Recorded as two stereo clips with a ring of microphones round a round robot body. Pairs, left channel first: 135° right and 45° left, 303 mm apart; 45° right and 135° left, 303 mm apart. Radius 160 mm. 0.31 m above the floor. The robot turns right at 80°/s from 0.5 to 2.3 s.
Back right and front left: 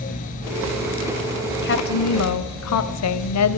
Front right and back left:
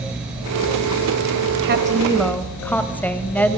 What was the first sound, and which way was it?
A woman speaking, 175° left.